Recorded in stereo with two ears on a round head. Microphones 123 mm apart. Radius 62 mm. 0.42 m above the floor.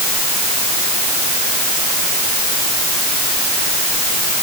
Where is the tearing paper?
I don't hear tearing paper.